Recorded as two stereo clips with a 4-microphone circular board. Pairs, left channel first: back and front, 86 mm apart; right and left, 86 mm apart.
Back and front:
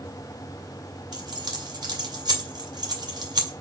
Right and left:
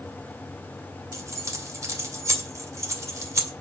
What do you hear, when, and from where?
1.1 s keys jangling: 35° left, 2.5 m